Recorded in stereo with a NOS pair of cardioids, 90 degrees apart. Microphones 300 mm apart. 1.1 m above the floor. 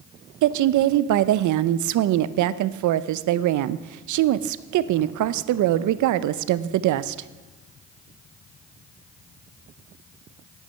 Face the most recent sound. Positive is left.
turn(degrees=-70)